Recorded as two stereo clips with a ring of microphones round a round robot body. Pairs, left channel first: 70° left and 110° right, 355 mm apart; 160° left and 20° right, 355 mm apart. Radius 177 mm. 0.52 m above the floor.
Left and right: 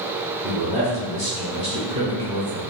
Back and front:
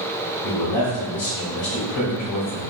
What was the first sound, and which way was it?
A man speaking, straight behind.